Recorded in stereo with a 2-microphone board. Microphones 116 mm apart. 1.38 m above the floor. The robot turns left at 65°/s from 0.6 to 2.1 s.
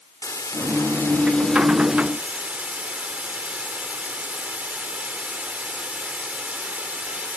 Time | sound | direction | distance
0.2 | a hiss | 75° left | 1.1 m